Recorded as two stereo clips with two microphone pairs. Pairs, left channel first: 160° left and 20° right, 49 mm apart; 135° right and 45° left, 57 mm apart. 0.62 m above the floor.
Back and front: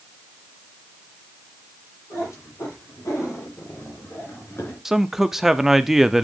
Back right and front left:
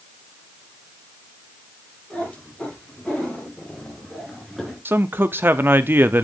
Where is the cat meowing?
155° left, 7 m; by 4.8 s 130° left, 3.5 m.